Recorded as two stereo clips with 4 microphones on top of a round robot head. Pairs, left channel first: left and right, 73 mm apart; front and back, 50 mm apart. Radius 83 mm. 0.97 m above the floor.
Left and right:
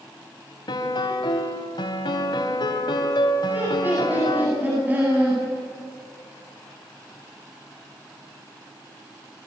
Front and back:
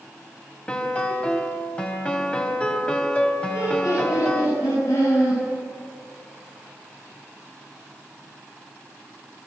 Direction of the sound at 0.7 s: 65° left.